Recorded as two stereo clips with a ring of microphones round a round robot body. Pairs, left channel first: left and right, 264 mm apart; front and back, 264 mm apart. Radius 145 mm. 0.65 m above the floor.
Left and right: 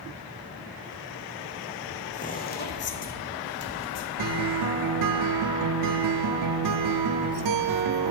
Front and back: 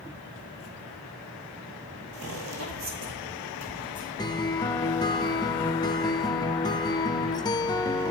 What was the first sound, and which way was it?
Footsteps, 150° left.